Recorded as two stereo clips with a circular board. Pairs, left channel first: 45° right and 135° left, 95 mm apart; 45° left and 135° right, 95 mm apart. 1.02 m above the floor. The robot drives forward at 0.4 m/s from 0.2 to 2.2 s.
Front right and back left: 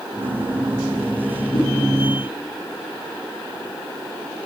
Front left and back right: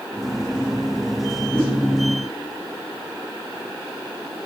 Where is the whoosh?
25° right, 9.5 m.